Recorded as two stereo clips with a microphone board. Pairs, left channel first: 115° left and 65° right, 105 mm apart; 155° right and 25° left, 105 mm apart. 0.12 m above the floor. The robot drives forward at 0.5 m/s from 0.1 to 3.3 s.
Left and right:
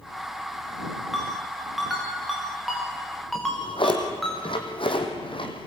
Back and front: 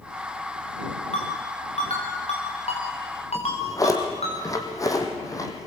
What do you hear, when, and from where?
1.1 s a ringtone: 155° right, 5.5 m; by 4.3 s 160° right, 6.5 m
3.4 s a drawer: 145° left, 2.5 m